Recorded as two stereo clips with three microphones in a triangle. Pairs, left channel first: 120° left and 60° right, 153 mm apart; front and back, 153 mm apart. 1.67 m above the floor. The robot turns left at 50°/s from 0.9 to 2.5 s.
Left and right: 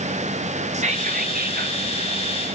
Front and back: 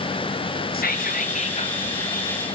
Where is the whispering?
15° right, 0.8 m; by 1.8 s 60° right, 0.8 m.